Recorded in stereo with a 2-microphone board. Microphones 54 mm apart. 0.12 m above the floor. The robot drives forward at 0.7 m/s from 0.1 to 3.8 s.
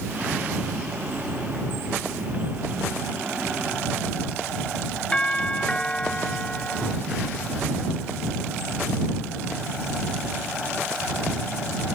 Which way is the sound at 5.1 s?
20° left (ahead or behind).